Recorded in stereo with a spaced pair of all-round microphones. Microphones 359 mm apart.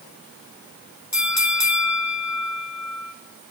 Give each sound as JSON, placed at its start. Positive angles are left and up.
{"t": 1.1, "sound": "a bell", "side_deg": 50, "distance_m": 1.0}